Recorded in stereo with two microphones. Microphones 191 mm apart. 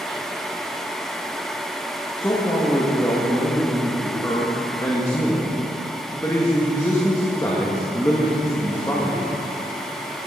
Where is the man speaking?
15° left (ahead or behind), 1.7 m.